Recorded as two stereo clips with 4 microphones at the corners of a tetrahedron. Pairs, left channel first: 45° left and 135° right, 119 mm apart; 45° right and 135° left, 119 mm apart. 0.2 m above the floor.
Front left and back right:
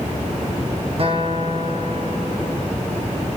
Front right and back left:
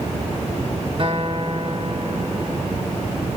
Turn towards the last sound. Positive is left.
turn(degrees=180)